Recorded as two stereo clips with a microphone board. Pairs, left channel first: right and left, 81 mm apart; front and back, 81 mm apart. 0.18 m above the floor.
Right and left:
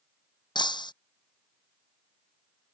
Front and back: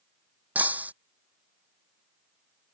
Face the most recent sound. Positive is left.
turn(degrees=-110)